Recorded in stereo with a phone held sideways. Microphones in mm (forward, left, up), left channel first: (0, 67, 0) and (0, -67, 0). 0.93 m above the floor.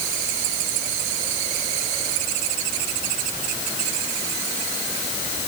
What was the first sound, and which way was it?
Only background noise.